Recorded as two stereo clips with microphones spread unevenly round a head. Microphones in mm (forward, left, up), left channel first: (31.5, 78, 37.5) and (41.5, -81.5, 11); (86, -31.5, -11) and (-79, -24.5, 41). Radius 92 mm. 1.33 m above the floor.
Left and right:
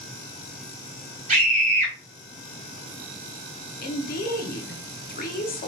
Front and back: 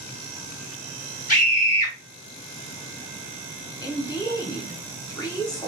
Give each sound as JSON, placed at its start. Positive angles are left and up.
{"t": 1.3, "sound": "a scream", "azimuth_deg": -35, "distance_m": 2.0}
{"t": 3.8, "sound": "a woman speaking", "azimuth_deg": 60, "distance_m": 0.9}